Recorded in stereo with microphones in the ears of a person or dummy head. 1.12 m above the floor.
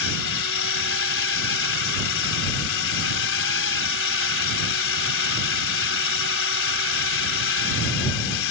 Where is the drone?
65° left (ahead or behind).